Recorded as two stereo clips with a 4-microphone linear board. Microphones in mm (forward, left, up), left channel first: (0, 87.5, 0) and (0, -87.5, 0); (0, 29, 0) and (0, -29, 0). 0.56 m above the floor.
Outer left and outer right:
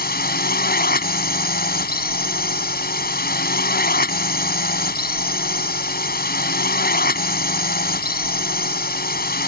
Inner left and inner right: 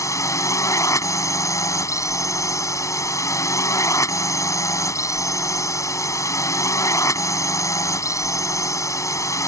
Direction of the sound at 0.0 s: 60° left (ahead or behind).